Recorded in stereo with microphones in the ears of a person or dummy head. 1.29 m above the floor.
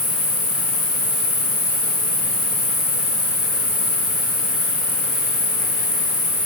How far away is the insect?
About 1.3 m.